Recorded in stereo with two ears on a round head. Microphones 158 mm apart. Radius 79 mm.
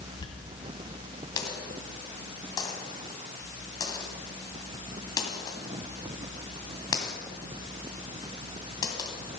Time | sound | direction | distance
0.2 | a dropped coin | 20° left (ahead or behind) | 2.5 m